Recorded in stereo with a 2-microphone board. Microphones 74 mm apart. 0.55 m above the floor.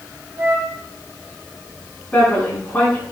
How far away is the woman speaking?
About 6 m.